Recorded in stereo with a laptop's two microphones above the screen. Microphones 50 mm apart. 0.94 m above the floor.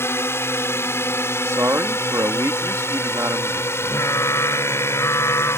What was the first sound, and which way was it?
A drone, 50° left (ahead or behind).